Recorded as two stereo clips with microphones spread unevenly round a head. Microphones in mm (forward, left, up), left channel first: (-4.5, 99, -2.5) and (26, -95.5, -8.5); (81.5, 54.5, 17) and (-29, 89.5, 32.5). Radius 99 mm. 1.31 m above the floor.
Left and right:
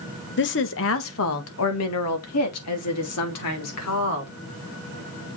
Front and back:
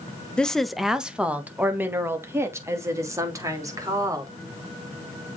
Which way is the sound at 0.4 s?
65° left.